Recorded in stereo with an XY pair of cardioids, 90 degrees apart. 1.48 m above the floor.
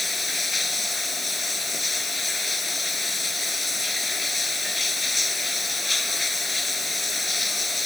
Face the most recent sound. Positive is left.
turn(degrees=20)